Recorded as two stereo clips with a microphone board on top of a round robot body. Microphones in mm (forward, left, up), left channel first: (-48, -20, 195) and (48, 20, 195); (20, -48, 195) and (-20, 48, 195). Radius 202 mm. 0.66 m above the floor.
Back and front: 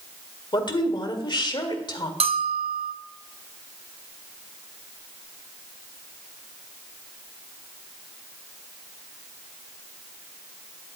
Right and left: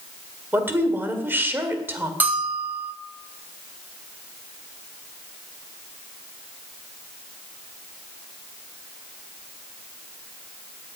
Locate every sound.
0.5 s a woman speaking: 175° left, 2 m
2.2 s a bell: 40° left, 0.8 m